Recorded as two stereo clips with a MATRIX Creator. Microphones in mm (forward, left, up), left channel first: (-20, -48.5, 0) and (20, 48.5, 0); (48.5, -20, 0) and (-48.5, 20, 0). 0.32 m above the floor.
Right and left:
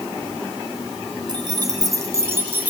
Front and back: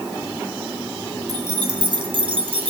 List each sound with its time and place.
1.3 s keys jangling: 110° left, 2.5 m; by 2.7 s 140° left, 2.5 m